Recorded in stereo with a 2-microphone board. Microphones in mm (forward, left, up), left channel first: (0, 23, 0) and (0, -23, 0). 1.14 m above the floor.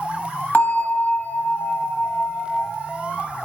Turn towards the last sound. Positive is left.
turn(degrees=40)  # may be behind; listen again after turning